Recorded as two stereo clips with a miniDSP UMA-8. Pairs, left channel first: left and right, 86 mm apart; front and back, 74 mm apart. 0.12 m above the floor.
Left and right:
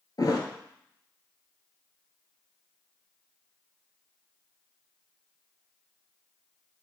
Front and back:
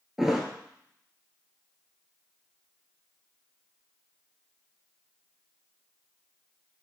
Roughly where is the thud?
Left.